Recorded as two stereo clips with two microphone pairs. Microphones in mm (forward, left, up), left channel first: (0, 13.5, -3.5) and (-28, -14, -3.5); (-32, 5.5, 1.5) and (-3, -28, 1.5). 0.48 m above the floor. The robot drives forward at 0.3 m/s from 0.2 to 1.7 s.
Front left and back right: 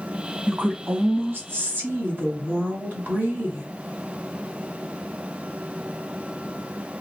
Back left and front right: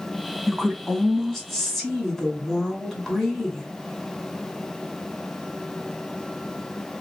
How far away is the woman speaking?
About 1.6 m.